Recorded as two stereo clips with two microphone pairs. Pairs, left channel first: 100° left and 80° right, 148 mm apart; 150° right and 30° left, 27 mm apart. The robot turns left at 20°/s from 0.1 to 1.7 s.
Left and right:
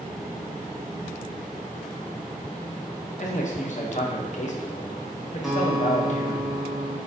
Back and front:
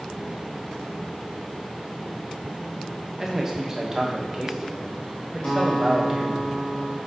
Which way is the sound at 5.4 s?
165° right.